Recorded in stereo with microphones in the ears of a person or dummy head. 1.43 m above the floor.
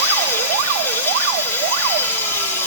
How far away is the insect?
About 1.7 m.